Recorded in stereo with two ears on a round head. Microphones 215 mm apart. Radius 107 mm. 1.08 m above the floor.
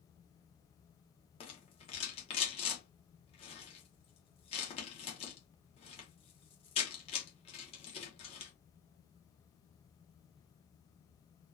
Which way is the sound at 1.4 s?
25° left (ahead or behind).